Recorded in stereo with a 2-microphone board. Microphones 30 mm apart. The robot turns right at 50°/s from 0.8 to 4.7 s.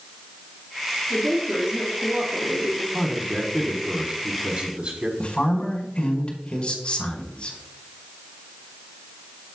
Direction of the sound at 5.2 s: 40° left (ahead or behind).